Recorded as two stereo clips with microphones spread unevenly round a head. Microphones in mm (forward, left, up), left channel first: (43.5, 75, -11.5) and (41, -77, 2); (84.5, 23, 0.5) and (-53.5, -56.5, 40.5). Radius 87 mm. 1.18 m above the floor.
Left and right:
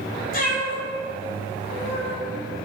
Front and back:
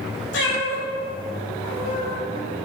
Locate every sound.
0.3 s a cat meowing: 60° left, 2 m; by 2.1 s 90° left, 2.5 m